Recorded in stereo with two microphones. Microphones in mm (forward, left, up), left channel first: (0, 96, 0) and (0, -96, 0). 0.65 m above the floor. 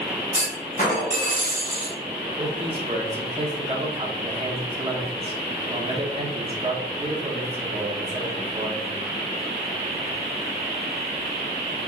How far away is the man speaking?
About 1.1 m.